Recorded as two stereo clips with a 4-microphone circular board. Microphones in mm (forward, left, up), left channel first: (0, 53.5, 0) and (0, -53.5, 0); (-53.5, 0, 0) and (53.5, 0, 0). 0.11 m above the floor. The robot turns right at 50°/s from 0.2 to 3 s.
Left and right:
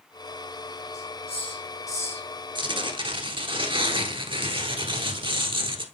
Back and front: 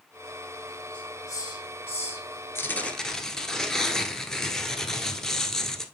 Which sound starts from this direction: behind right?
Tearing paper, at 2.5 s.